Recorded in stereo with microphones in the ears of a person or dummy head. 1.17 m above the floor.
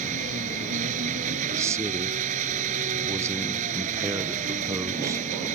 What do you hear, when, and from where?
0.0 s an engine running: 45° right (ahead or behind)
1.5 s a man speaking: 15° right (ahead or behind)